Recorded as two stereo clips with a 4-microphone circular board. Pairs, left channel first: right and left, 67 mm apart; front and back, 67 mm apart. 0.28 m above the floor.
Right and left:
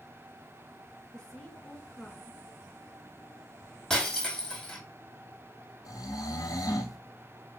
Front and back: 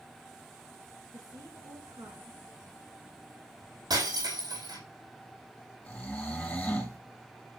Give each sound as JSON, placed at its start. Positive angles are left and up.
{"t": 1.1, "sound": "a woman speaking", "azimuth_deg": -170, "distance_m": 4.0}
{"t": 3.9, "sound": "breaking glass", "azimuth_deg": -170, "distance_m": 4.5}
{"t": 5.8, "sound": "snoring", "azimuth_deg": -70, "distance_m": 1.6}